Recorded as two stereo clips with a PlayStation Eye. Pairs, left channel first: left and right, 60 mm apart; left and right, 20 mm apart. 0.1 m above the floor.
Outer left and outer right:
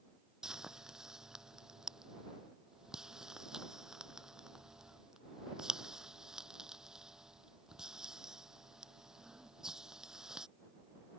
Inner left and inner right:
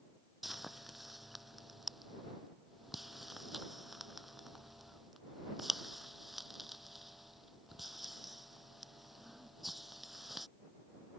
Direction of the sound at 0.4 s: 10° right (ahead or behind).